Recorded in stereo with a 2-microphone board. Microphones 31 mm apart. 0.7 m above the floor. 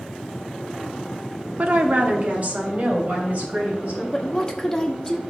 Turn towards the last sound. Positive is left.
turn(degrees=20)  # may be behind; listen again after turning